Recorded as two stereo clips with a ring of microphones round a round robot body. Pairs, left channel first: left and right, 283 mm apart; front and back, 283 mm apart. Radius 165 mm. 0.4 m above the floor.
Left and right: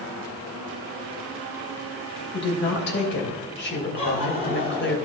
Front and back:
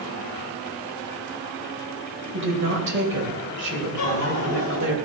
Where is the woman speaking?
135° left, 2.5 m.